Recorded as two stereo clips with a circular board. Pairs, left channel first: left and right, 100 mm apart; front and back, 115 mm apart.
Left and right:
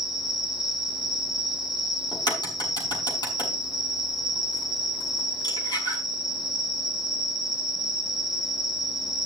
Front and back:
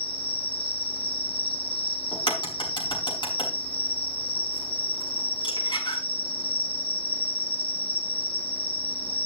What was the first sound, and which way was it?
An insect, 5° right.